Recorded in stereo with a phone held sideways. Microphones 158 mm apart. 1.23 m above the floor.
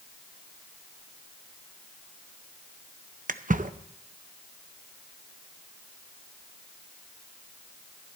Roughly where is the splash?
Right.